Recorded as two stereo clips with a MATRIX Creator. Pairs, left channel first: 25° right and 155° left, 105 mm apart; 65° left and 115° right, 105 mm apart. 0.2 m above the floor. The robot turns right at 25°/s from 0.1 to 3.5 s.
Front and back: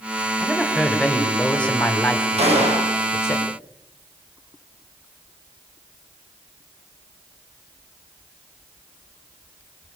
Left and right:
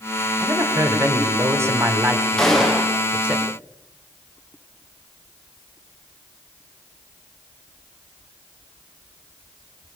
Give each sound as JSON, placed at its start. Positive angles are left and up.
{"t": 0.4, "sound": "a woman speaking", "azimuth_deg": -120, "distance_m": 1.7}
{"t": 2.4, "sound": "a gunshot", "azimuth_deg": 150, "distance_m": 4.0}